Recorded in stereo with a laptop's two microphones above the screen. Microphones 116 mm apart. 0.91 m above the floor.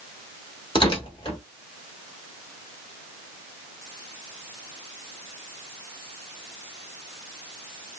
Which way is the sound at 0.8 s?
45° left (ahead or behind).